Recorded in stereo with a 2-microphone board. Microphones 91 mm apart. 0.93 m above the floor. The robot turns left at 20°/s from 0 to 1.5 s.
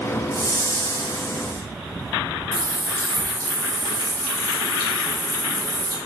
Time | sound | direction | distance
0.3 | a whoosh | 35° left (ahead or behind) | 1.8 m
2.5 | a running tap | 40° right (ahead or behind) | 1.7 m